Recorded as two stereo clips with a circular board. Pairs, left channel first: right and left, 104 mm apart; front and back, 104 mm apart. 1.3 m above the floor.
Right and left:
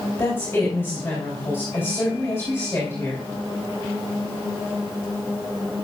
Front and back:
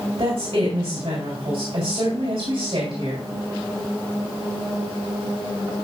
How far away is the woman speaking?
About 3 m.